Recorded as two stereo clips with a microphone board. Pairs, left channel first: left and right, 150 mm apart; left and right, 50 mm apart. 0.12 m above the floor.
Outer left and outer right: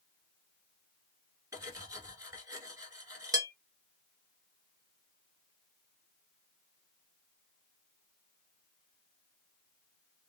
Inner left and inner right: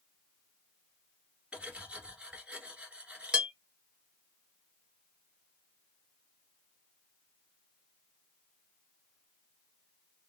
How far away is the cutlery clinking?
About 1.2 m.